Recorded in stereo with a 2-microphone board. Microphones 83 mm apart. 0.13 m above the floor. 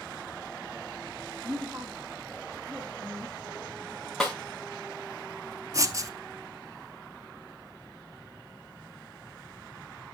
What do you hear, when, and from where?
1.4 s a woman speaking: 25° right (ahead or behind), 4 m
4.2 s a snare drum: centre (ahead or behind), 2.5 m
5.7 s writing: 40° right (ahead or behind), 0.8 m